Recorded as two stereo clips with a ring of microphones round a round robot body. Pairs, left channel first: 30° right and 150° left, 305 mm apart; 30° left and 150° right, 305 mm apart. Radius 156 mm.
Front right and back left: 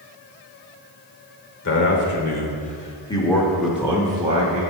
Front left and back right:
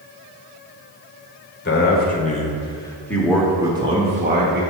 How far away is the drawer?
I don't hear a drawer.